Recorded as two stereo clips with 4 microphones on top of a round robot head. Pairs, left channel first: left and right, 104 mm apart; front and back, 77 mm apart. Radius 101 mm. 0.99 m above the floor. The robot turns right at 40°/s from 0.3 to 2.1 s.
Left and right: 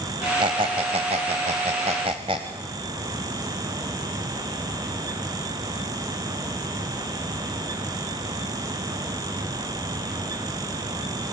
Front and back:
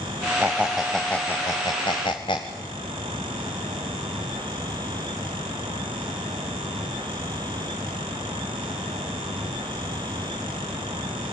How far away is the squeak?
About 0.9 m.